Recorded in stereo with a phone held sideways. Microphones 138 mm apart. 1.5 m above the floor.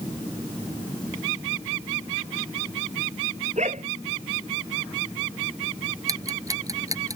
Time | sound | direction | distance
3.6 | a dog barking | 60° right (ahead or behind) | ?
6.1 | ticking | 25° right (ahead or behind) | ?